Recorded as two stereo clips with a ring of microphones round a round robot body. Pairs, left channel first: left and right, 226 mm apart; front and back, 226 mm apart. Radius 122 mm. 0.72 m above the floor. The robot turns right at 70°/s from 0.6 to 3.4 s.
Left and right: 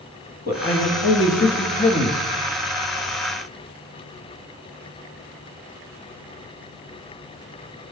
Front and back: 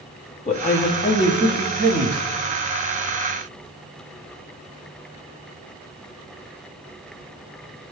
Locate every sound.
0.5 s a man speaking: 50° left, 1.1 m; by 2.2 s 160° left, 1.1 m